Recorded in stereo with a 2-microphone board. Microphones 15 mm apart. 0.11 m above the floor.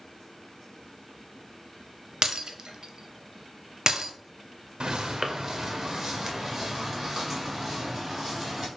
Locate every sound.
2.2 s breaking glass: 50° right (ahead or behind), 0.6 m
4.8 s footsteps: 60° right (ahead or behind), 0.5 m; by 8.7 s 5° right (ahead or behind), 3 m